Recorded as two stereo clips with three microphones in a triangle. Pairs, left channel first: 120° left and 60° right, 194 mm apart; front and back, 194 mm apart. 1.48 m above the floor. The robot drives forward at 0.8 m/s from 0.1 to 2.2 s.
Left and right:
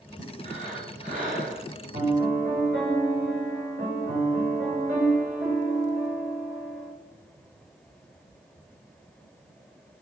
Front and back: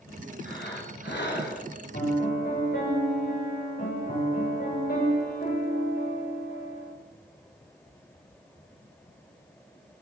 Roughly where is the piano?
Ahead right.